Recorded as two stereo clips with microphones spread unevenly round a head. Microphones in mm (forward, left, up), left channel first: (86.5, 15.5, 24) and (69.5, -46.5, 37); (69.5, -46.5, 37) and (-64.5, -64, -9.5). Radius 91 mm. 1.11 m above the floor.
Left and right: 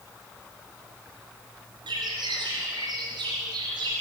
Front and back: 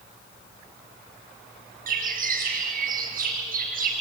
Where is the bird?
150° right, 5 m.